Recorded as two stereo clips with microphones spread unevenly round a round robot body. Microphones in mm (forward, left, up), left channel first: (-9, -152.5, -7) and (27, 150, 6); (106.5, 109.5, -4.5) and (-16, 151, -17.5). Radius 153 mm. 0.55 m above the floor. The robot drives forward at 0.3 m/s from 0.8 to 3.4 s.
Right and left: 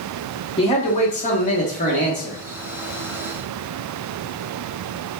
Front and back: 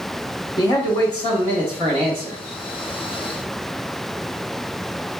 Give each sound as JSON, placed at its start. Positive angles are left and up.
{"t": 0.6, "sound": "a man speaking", "azimuth_deg": -55, "distance_m": 0.9}